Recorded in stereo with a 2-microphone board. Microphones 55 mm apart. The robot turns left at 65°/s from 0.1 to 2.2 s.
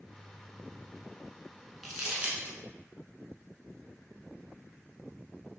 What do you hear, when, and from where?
1.8 s crumpling: centre (ahead or behind), 0.8 m; by 2.6 s 25° right (ahead or behind), 0.8 m